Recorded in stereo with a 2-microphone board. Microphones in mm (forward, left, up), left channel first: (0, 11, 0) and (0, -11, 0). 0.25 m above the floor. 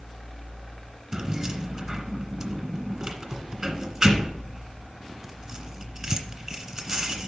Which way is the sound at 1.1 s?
35° right (ahead or behind).